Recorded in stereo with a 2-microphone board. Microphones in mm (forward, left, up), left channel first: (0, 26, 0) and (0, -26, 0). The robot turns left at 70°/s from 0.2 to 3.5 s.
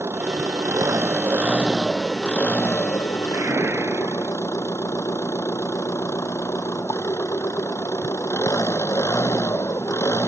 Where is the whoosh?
70° right (ahead or behind); by 4.3 s 60° right (ahead or behind).